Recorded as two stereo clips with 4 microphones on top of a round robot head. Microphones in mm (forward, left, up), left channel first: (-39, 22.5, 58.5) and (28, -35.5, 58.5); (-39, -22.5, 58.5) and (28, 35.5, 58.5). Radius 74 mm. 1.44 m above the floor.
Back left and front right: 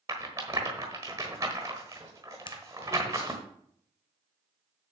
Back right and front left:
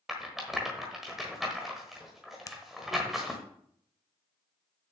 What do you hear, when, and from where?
0.1 s a rattle: 40° right, 1.2 m
2.5 s a finger snap: 170° left, 0.8 m